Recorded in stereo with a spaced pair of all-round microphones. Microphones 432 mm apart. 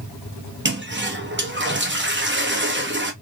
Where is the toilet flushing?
25° right (ahead or behind), 0.7 m.